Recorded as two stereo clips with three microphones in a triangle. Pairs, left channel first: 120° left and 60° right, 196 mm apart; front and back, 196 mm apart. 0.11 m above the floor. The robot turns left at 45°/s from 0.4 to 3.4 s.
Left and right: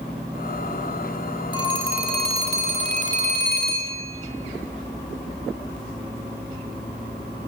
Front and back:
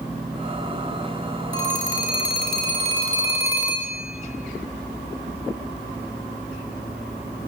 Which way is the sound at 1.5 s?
175° right.